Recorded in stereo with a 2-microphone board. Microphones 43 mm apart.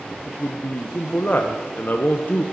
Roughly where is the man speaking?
Left.